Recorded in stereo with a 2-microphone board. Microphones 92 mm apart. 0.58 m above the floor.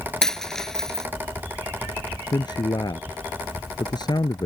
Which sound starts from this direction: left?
A man speaking, at 2.3 s.